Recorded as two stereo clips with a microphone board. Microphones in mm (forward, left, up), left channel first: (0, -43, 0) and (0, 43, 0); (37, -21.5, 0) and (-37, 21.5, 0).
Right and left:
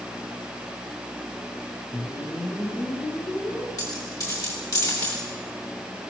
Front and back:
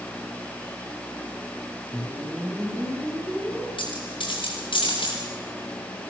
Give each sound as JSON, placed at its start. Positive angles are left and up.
{"t": 1.9, "sound": "a whoosh", "azimuth_deg": -140, "distance_m": 5.0}
{"t": 3.8, "sound": "a dropped coin", "azimuth_deg": -40, "distance_m": 8.0}